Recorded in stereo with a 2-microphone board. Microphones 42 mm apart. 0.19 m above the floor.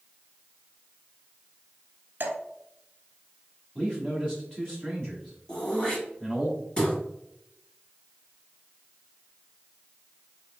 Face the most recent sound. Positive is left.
turn(degrees=20)  # may be behind; listen again after turning